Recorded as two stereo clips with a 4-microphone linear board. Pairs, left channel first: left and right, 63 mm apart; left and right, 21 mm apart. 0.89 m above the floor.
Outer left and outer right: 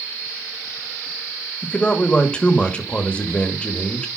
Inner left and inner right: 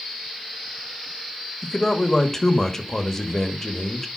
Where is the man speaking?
15° left (ahead or behind), 1.2 m.